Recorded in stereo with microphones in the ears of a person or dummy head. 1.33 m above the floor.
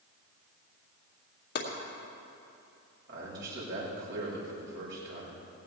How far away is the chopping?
About 2 m.